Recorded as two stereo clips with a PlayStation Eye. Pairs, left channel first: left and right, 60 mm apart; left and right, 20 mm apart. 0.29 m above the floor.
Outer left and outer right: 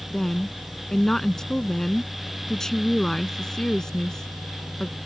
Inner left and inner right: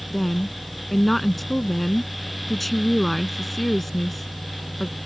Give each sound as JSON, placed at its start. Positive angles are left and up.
{"t": 0.1, "sound": "a woman speaking", "side_deg": 10}